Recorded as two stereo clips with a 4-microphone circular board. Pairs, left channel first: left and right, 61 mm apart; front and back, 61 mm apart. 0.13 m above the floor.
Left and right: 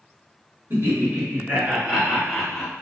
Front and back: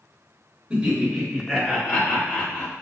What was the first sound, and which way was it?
Laughter, 105° right.